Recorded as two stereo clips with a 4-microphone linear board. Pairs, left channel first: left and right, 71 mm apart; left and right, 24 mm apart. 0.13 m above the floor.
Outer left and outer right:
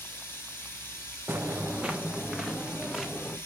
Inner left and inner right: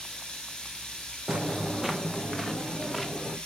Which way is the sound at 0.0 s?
35° left (ahead or behind).